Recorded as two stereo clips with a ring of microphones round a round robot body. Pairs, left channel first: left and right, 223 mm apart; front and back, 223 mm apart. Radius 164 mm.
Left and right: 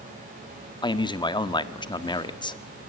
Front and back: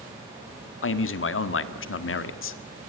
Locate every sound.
0.8 s a man speaking: 20° left, 1.6 m